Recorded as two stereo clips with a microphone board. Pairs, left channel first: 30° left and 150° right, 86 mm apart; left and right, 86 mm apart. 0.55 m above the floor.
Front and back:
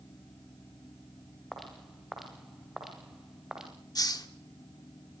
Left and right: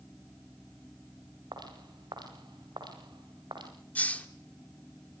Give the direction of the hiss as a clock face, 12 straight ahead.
11 o'clock.